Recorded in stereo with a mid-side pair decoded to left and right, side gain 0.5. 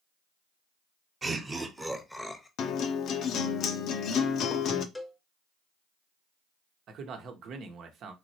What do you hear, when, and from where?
1.2 s laughter: 35° right, 1.2 m; by 2.5 s 15° left, 0.9 m
2.6 s a guitar: 60° left, 0.6 m
5.0 s a cowbell: 10° left, 0.8 m
6.9 s a man speaking: 60° right, 1.0 m